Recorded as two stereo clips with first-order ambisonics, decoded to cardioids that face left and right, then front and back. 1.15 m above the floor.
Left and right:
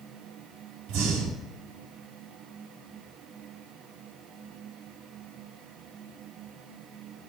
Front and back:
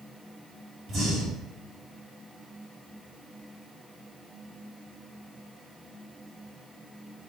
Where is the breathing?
120° right, 4.5 m.